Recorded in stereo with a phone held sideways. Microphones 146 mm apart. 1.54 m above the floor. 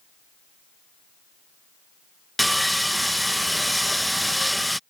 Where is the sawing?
Centre (ahead or behind).